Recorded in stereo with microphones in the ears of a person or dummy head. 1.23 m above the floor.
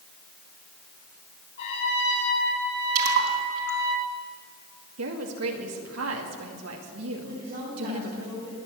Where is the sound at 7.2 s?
50° right (ahead or behind), 7.5 m.